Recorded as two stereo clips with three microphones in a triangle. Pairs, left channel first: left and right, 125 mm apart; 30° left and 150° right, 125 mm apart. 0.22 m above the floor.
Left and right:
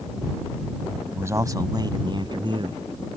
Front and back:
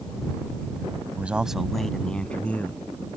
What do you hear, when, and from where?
1.1 s a man speaking: 100° right; by 2.8 s 45° right